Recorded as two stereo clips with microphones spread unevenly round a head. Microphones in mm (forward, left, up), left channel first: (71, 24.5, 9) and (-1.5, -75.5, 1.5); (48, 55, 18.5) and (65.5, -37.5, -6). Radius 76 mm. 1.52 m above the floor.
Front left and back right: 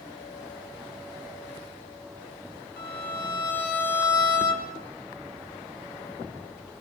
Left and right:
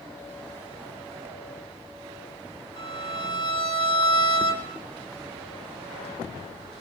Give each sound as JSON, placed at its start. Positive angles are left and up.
{"t": 2.8, "sound": "a violin", "azimuth_deg": 75, "distance_m": 6.0}